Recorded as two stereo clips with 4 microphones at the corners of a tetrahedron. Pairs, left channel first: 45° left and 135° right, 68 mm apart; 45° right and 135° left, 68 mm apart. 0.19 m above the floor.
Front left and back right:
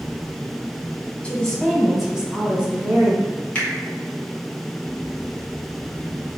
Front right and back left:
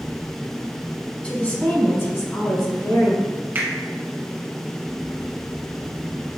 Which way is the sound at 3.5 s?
105° left.